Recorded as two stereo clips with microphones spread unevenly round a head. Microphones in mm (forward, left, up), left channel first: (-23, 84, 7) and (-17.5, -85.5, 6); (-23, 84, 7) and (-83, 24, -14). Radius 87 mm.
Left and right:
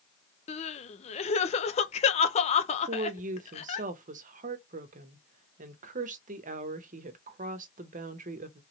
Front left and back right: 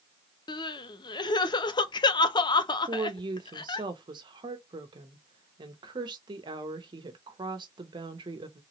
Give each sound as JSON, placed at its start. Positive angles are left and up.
{"t": 0.5, "sound": "crying", "azimuth_deg": 60, "distance_m": 0.5}
{"t": 2.9, "sound": "a woman speaking", "azimuth_deg": -125, "distance_m": 0.8}